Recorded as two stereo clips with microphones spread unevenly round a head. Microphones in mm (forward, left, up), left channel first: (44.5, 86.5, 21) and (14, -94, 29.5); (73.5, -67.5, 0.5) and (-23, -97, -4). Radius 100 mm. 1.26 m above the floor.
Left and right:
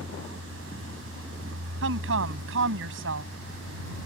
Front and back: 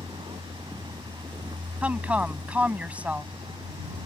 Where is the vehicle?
125° right.